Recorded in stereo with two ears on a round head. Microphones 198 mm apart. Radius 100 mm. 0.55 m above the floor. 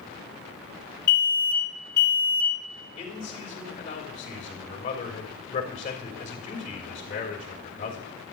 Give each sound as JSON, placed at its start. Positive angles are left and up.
{"t": 1.1, "sound": "an alarm", "side_deg": 50, "distance_m": 3.0}
{"t": 3.0, "sound": "a man speaking", "side_deg": 40, "distance_m": 3.0}